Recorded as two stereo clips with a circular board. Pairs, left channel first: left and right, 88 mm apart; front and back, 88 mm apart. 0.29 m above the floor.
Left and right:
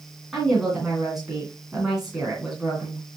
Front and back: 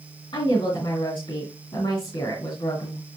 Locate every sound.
0.3 s a woman speaking: straight ahead, 2.5 m